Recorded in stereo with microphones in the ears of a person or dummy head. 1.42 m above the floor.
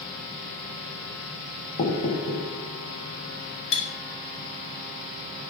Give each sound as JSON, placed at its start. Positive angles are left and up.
{"t": 1.8, "sound": "knocking", "side_deg": 50, "distance_m": 1.3}
{"t": 3.7, "sound": "cutlery clinking", "side_deg": 60, "distance_m": 1.7}